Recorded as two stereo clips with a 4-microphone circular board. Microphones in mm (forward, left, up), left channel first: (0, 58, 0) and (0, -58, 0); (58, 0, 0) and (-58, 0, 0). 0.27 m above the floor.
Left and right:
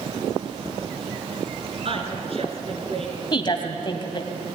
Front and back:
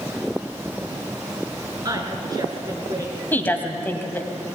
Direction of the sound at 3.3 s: 65° left.